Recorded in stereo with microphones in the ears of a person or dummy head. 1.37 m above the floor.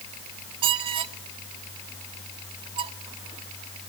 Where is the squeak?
30° right (ahead or behind), 0.5 m.